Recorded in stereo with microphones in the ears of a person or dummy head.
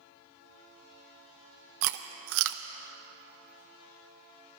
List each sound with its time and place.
1.8 s chewing: 65° right (ahead or behind), 0.6 m